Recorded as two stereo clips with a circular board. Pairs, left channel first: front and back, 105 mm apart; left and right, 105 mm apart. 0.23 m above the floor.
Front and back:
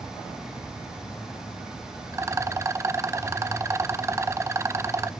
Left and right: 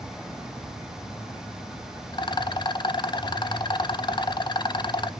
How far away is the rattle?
About 0.5 m.